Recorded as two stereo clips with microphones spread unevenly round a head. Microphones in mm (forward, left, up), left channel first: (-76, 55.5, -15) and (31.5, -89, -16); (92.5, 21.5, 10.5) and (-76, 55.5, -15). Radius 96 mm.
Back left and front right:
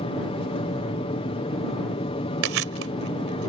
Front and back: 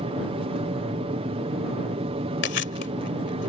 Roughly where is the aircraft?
Behind left.